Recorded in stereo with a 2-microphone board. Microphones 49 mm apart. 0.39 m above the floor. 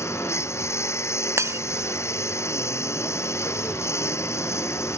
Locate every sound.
0.0 s a lawn mower: 70° left (ahead or behind)
1.4 s breaking glass: 80° right